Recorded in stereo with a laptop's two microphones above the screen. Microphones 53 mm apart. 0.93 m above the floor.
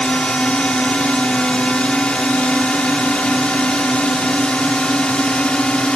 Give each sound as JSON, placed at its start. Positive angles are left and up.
{"t": 0.0, "sound": "a drone", "side_deg": 20}